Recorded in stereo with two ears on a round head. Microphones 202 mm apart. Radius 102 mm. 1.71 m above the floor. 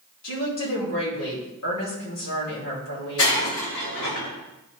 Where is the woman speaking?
80° left, 3.5 m.